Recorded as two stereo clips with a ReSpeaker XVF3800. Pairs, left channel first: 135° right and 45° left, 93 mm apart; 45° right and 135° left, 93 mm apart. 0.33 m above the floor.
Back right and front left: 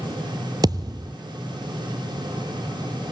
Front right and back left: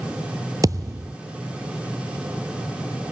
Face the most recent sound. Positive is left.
turn(degrees=85)